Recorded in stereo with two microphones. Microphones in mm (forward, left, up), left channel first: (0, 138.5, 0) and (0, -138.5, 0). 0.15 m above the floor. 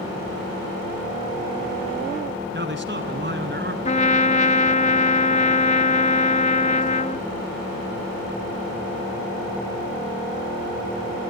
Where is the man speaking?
40° right (ahead or behind), 1.9 m.